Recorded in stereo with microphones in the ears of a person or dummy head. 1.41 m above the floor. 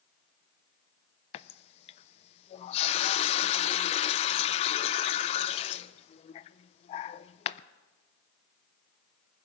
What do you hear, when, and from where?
1.3 s a running tap: 35° left (ahead or behind), 0.5 m